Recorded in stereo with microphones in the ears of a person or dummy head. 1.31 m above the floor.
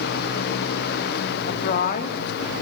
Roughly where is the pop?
I don't hear a pop.